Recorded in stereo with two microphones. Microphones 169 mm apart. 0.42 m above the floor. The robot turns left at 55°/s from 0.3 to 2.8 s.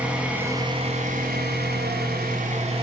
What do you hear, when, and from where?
0.0 s an engine running: 5° right, 2.0 m; by 2.8 s 145° right, 2.0 m